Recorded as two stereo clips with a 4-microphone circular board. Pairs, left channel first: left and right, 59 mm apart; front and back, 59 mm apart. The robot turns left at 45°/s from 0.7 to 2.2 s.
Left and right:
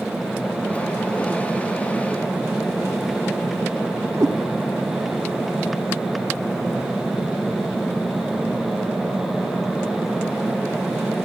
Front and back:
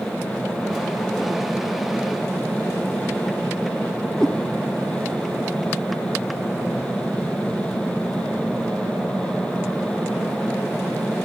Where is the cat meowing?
80° right, 0.9 m.